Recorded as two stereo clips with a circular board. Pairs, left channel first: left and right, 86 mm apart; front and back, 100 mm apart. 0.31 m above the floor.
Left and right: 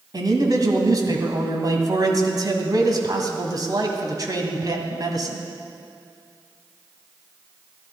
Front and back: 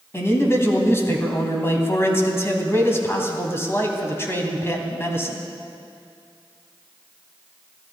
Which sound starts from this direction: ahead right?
A man speaking, at 0.1 s.